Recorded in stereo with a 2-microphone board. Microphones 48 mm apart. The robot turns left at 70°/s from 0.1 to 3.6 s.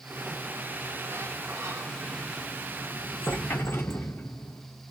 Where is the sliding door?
Straight ahead, 0.9 m; by 4.7 s 115° left, 0.9 m.